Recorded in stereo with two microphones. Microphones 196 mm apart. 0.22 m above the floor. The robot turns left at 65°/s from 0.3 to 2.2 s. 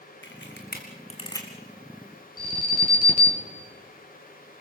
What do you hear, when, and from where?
0.2 s a camera shutter: 90° left, 2.5 m; by 1.5 s 10° left (ahead or behind), 2.5 m
2.4 s an alarm: 50° left (ahead or behind), 3.5 m